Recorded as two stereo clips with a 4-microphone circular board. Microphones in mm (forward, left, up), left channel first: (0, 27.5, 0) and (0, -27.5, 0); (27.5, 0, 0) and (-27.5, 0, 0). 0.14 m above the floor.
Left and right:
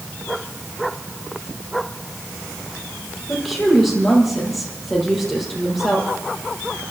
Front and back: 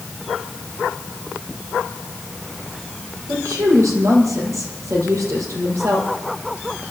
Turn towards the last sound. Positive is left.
turn(degrees=175)